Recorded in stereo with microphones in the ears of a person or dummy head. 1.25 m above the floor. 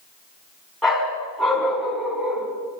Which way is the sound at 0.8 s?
Centre (ahead or behind).